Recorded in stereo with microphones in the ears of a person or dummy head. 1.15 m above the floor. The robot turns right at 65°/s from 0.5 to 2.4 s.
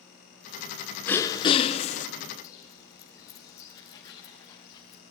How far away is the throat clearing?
About 0.6 m.